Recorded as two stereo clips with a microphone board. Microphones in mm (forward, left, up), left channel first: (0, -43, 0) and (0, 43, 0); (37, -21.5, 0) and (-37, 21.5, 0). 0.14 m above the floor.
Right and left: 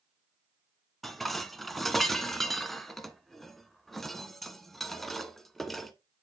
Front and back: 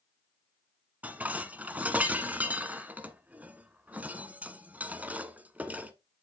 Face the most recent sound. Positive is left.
turn(degrees=-175)